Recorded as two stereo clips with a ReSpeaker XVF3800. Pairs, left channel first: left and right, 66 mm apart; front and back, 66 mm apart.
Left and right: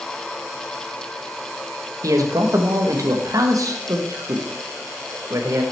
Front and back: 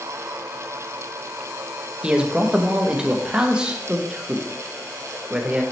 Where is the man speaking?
105° right, 0.8 m.